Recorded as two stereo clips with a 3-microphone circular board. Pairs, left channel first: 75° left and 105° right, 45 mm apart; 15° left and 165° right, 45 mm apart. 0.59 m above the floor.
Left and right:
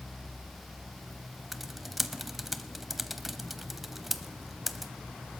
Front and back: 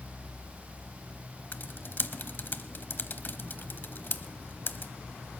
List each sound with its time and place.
1.5 s typing on a keyboard: 20° right, 0.7 m